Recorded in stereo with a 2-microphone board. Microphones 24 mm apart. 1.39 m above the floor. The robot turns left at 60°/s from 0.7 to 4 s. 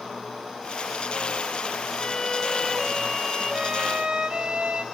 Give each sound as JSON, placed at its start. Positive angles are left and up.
{"t": 2.0, "sound": "a violin", "azimuth_deg": 55, "distance_m": 2.0}